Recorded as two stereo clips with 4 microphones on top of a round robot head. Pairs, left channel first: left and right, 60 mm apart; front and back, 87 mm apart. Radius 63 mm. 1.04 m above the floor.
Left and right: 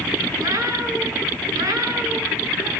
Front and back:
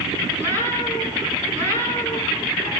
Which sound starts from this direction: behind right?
A cat meowing, at 0.4 s.